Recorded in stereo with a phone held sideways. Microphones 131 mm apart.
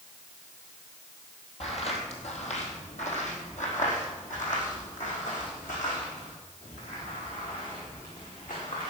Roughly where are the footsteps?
Left.